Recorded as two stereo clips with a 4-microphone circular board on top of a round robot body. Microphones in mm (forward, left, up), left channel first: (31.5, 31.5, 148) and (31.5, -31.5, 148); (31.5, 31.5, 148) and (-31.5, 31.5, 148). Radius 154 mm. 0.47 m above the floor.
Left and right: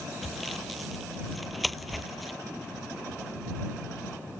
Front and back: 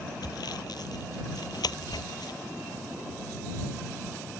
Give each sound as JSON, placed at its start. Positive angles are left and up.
{"t": 0.2, "sound": "sawing", "azimuth_deg": 0}